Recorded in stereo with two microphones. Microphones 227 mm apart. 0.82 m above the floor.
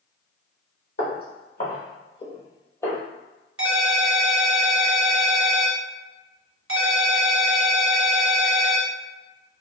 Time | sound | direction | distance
1.0 | footsteps | 50° left (ahead or behind) | 1.5 m
3.6 | a ringtone | 65° right (ahead or behind) | 0.8 m